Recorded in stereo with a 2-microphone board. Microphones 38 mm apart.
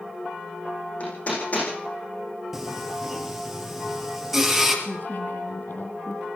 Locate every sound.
1.0 s hammering: 40° left (ahead or behind), 10 m
2.5 s singing: 5° right (ahead or behind), 4 m
4.8 s a woman speaking: 55° left (ahead or behind), 3.5 m